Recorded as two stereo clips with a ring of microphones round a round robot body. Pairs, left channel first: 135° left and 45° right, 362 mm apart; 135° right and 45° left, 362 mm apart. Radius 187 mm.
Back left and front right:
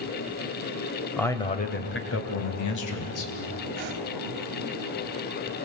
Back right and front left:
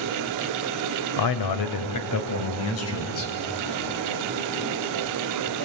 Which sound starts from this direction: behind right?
A man speaking, at 1.2 s.